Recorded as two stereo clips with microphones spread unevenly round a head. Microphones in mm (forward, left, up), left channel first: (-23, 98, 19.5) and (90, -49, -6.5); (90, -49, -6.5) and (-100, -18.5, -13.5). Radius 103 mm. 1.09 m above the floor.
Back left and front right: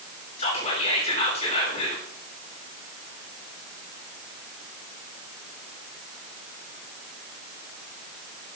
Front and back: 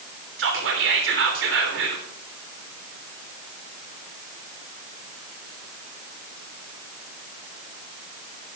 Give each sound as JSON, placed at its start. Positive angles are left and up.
{"t": 0.4, "sound": "whispering", "azimuth_deg": -170, "distance_m": 3.5}